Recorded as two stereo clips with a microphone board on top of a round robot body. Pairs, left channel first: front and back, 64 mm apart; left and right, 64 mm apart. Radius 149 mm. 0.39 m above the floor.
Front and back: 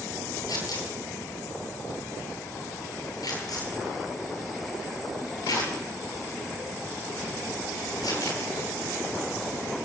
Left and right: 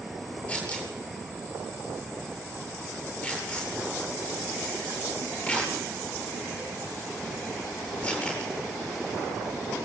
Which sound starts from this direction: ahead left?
Tearing paper, at 0.5 s.